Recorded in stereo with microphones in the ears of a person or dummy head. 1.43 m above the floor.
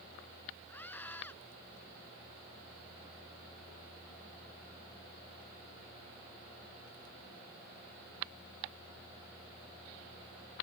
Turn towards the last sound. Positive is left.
turn(degrees=10)  # may be behind; listen again after turning